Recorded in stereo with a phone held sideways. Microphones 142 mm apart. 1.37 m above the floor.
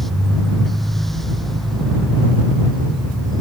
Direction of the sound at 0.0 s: Centre (ahead or behind).